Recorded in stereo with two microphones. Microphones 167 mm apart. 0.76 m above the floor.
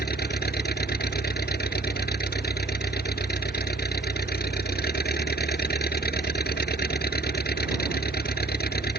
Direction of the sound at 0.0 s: 70° left (ahead or behind).